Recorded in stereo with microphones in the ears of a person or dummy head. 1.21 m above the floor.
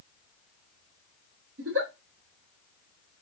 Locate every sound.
1.6 s a giggle: 75° right (ahead or behind), 1.5 m